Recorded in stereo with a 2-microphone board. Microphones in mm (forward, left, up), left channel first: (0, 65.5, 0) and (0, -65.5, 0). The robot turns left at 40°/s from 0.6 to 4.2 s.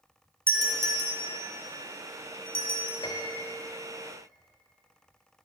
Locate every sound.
0.5 s a doorbell: 20° right (ahead or behind), 1.8 m; by 2.9 s 45° right (ahead or behind), 1.8 m
3.0 s a piano: 40° left (ahead or behind), 1.4 m; by 3.5 s 25° left (ahead or behind), 1.4 m